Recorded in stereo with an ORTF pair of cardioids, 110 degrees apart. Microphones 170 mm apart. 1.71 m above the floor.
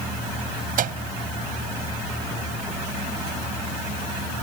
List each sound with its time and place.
0.8 s a microwave: 55° right